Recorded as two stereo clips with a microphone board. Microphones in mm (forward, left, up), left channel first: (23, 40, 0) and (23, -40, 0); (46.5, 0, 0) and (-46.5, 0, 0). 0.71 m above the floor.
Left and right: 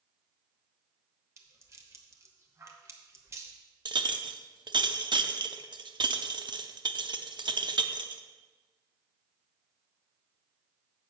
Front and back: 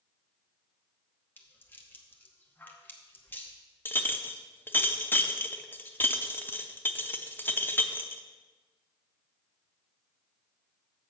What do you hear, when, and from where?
1.4 s a rattle: 55° right, 1.0 m
3.9 s a clink: 65° right, 0.6 m